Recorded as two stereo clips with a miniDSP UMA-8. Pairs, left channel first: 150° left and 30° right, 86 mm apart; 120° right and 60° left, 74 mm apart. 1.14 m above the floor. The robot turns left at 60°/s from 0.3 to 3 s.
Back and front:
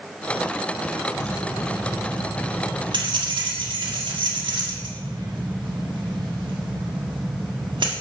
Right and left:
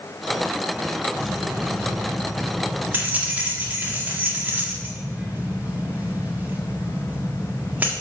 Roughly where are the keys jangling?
Left.